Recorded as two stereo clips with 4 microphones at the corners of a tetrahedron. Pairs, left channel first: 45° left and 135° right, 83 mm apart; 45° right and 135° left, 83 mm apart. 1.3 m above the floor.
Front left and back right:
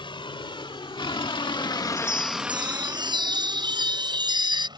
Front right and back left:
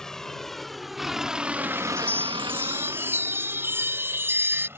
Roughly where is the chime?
Behind.